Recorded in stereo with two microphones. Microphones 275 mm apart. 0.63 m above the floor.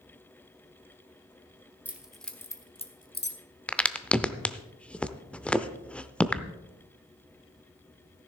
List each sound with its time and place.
1.9 s keys jangling: 5° right (ahead or behind), 1.3 m; by 3.4 s 45° left (ahead or behind), 0.9 m
3.7 s a crack: 5° left (ahead or behind), 0.5 m